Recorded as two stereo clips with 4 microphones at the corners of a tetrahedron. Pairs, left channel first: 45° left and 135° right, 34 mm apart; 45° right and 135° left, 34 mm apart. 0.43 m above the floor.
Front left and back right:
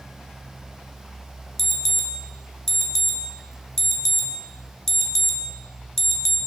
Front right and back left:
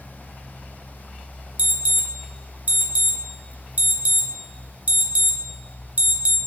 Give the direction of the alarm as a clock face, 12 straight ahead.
8 o'clock.